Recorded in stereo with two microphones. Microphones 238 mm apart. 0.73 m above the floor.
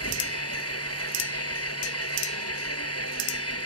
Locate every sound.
0.0 s an engine running: 90° left